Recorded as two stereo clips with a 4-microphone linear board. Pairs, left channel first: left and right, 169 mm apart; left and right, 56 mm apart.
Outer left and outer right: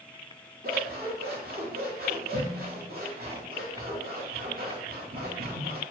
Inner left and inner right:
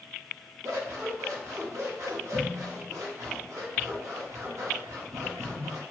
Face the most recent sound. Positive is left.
turn(degrees=-65)  # may be behind; listen again after turning